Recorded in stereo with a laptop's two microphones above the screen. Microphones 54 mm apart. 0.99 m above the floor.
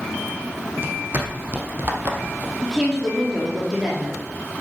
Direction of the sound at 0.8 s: 40° right (ahead or behind).